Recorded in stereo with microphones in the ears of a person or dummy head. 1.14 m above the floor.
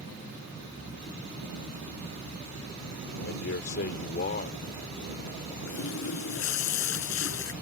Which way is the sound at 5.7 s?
70° left (ahead or behind).